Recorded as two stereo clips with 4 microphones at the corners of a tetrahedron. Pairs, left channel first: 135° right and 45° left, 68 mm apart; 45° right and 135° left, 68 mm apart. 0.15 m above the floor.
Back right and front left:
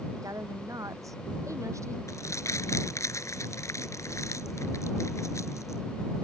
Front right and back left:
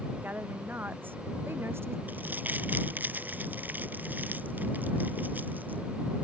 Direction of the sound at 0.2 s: 75° left.